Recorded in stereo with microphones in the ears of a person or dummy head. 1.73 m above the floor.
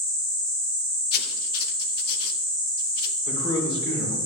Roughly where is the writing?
Left.